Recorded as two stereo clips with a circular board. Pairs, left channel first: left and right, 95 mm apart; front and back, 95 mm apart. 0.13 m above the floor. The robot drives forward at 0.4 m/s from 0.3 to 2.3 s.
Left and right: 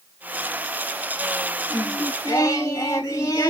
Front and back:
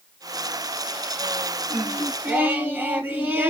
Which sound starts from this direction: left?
Singing, at 1.7 s.